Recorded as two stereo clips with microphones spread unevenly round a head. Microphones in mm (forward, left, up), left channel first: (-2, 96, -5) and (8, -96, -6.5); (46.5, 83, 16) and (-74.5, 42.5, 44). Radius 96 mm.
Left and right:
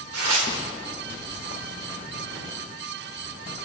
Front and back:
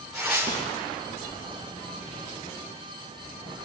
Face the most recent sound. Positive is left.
turn(degrees=-75)